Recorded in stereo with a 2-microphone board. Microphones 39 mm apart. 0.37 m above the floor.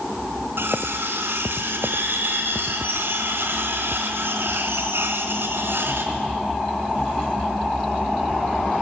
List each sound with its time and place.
0.6 s cutlery clinking: 75° right (ahead or behind), 2.5 m